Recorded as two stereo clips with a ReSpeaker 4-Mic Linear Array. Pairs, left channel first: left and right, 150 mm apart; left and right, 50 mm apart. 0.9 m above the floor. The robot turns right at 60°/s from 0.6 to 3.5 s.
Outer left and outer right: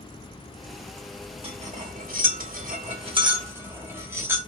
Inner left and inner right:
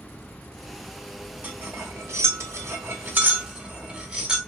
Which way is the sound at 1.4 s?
40° right (ahead or behind).